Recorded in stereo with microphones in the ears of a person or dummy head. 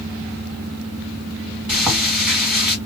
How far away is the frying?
About 1.9 m.